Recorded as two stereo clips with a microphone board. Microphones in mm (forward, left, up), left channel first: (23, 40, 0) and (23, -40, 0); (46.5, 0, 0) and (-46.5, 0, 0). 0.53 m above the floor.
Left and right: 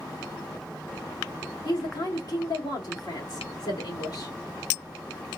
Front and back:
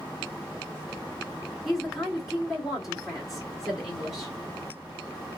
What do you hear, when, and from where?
1.6 s a woman speaking: 90° left, 1.5 m